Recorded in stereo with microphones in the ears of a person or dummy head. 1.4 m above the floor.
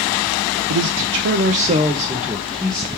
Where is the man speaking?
80° right, 0.6 m; by 2.9 s centre (ahead or behind), 1.0 m.